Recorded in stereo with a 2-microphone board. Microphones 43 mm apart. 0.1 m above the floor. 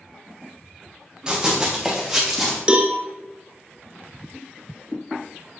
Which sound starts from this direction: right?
A cowbell, at 2.7 s.